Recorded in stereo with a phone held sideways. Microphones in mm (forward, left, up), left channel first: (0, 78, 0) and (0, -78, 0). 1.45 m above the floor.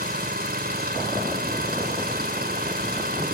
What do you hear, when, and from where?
0.0 s an engine running: 80° right